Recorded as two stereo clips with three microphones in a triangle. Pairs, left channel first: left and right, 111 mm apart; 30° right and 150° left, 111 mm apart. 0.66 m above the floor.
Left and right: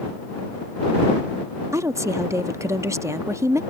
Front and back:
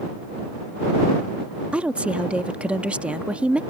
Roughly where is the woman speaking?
Behind right.